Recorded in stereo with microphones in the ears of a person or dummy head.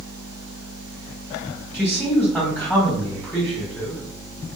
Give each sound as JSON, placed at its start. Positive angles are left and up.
{"t": 1.7, "sound": "a man speaking", "side_deg": 15, "distance_m": 1.4}